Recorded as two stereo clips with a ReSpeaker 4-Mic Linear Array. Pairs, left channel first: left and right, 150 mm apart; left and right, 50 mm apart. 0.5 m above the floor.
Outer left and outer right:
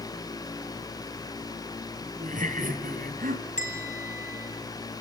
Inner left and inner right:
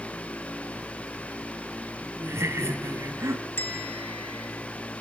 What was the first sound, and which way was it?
Laughter, 60° right (ahead or behind).